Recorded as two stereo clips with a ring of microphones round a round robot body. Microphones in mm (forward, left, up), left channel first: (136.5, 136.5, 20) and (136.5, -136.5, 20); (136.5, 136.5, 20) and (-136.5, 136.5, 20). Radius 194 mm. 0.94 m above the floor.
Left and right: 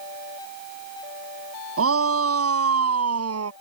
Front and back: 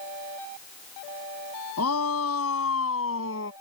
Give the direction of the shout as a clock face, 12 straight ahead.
2 o'clock.